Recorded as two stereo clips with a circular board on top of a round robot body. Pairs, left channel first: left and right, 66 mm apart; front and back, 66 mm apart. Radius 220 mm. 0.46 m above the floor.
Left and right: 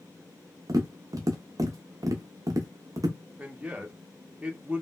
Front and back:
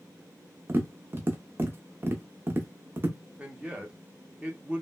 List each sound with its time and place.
0.7 s tapping: 120° right, 0.5 m
3.4 s a man speaking: 135° right, 0.9 m